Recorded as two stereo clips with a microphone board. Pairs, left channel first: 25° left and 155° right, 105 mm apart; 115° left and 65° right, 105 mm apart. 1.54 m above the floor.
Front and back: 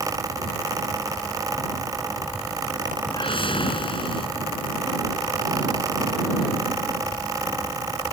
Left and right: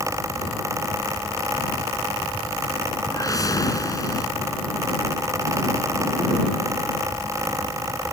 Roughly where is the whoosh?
Ahead left.